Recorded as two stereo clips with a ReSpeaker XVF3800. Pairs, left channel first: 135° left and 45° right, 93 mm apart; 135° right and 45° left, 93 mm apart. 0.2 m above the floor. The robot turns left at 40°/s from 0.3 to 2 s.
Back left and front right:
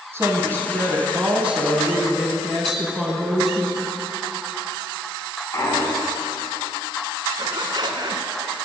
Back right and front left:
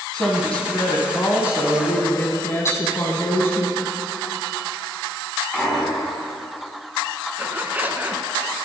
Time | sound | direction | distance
0.1 | a woman speaking | 65° right | 1.4 m
2.6 | tapping | 135° right | 1.5 m
5.5 | a clunk | 145° left | 1.6 m
7.4 | a zipper | 20° right | 0.7 m